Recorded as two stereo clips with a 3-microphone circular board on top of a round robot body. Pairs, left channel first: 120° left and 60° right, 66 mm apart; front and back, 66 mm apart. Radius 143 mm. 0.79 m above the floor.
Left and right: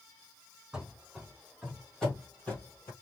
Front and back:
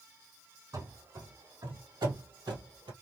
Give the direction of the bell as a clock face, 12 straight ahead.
I don't hear a bell.